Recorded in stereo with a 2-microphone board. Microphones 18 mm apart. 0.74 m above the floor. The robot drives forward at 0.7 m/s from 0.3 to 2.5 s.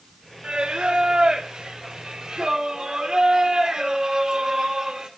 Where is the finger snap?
No finger snap in this recording.